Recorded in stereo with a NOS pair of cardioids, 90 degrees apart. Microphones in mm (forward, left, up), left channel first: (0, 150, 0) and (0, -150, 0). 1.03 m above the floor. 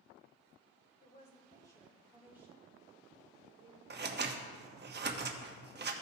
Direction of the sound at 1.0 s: 25° left.